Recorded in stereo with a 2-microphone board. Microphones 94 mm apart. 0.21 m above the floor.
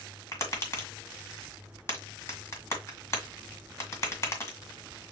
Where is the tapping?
30° left (ahead or behind), 1.8 m.